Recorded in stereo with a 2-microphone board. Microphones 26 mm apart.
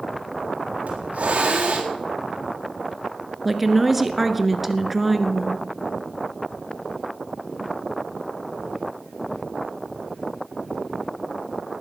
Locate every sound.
0.9 s a hiss: 60° right (ahead or behind), 4 m
3.5 s a woman speaking: centre (ahead or behind), 1.3 m